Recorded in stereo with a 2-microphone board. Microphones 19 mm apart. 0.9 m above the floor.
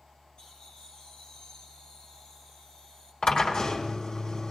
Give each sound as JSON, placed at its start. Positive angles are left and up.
{"t": 0.4, "sound": "laughter", "side_deg": 45, "distance_m": 6.0}
{"t": 3.2, "sound": "a drill", "side_deg": 60, "distance_m": 1.8}